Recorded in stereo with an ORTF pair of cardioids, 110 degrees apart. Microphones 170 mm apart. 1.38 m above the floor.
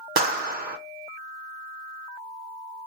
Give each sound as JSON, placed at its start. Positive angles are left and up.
{"t": 0.2, "sound": "a clap", "azimuth_deg": -65, "distance_m": 0.9}